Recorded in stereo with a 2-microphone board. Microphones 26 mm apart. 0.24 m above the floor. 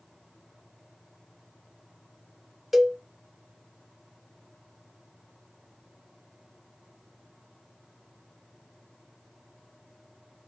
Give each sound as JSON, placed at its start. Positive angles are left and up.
{"t": 2.7, "sound": "a cowbell", "side_deg": -10, "distance_m": 0.7}